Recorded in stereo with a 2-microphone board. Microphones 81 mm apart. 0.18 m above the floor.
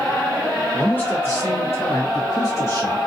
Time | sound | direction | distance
0.7 | a man speaking | 15° left (ahead or behind) | 1.5 m